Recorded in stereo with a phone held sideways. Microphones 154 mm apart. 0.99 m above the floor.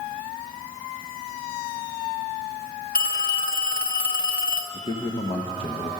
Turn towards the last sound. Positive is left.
turn(degrees=35)  # may be behind; listen again after turning